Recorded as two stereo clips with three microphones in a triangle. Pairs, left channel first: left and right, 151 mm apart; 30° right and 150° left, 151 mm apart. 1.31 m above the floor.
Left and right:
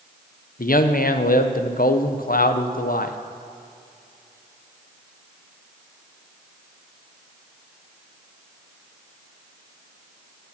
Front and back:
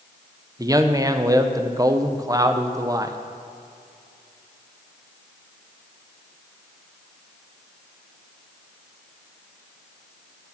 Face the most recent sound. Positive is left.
turn(degrees=85)